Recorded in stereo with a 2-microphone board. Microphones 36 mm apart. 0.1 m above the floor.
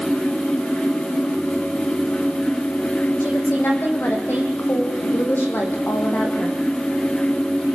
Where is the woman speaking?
70° left (ahead or behind), 5.5 m.